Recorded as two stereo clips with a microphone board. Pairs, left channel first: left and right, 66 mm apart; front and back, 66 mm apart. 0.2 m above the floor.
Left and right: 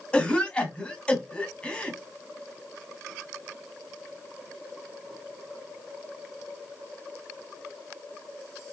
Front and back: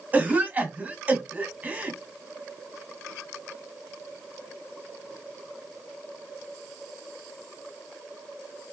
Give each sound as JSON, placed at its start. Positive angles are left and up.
{"t": 0.1, "sound": "a cough", "azimuth_deg": 145, "distance_m": 1.2}